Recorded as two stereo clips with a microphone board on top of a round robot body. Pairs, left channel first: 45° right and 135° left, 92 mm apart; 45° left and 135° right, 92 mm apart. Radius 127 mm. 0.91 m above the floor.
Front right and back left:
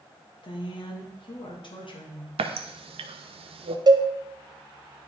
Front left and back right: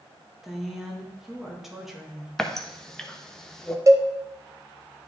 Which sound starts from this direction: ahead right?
A woman speaking, at 0.4 s.